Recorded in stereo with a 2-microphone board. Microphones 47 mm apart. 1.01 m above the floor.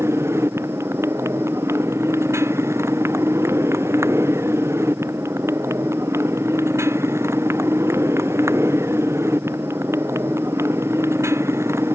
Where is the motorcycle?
85° right.